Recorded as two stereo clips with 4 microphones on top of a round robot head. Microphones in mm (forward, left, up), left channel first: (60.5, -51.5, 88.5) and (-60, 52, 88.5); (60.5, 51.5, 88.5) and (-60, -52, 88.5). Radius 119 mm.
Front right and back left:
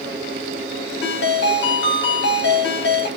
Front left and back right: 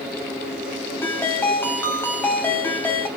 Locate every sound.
1.0 s a ringtone: 35° right, 3 m